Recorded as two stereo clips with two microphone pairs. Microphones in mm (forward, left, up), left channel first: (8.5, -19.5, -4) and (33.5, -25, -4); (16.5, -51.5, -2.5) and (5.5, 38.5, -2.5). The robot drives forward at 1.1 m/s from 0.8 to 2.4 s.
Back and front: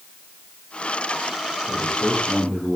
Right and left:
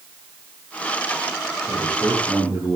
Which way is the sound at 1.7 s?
175° left.